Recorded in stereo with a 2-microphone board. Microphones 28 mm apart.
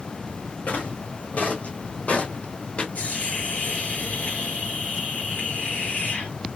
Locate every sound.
0.7 s footsteps: 65° left (ahead or behind), 2.5 m; by 2.9 s 45° left (ahead or behind), 1.2 m
3.0 s a hiss: 75° left (ahead or behind), 3 m